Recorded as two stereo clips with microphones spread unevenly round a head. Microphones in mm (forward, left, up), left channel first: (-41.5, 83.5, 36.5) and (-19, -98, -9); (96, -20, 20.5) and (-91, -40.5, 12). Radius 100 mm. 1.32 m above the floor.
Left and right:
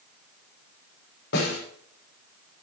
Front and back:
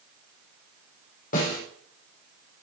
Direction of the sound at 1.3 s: 55° left.